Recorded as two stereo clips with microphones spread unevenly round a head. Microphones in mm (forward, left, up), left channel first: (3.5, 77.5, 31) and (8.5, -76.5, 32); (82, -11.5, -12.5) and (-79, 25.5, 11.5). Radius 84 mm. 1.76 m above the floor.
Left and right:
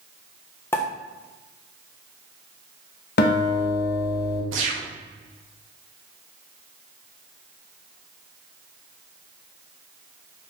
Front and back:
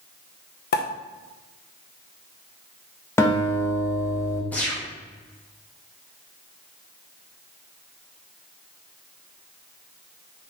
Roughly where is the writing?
No writing in this recording.